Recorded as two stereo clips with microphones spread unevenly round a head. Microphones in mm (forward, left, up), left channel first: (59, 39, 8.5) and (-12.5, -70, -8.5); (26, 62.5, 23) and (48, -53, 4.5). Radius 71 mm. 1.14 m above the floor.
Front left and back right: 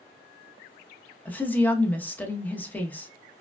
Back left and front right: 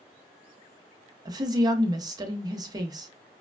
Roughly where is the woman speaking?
Ahead.